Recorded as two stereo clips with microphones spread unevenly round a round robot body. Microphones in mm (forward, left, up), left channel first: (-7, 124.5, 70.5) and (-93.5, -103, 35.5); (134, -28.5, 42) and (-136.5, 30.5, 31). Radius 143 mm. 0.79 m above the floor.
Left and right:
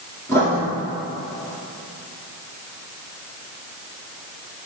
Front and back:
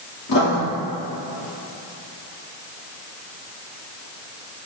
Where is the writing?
15° right, 1.9 m.